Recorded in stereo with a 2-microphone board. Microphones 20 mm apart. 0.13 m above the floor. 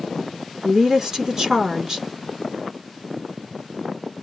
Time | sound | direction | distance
0.6 | a woman speaking | 35° right (ahead or behind) | 1.3 m